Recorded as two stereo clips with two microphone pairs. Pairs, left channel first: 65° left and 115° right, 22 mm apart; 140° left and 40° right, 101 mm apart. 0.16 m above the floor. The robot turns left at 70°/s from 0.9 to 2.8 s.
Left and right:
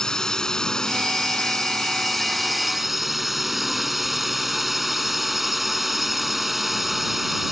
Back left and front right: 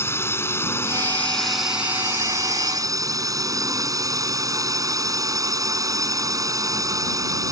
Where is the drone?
95° left; by 7.5 s 40° right.